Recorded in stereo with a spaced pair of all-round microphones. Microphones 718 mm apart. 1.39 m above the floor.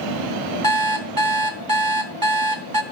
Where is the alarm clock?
30° right (ahead or behind), 0.8 m.